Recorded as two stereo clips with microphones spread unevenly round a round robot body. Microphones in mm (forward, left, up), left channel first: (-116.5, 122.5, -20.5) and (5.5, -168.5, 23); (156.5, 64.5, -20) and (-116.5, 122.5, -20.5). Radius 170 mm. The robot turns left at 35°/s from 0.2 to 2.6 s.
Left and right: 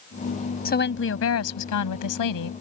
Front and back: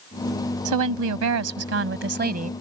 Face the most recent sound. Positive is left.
turn(degrees=105)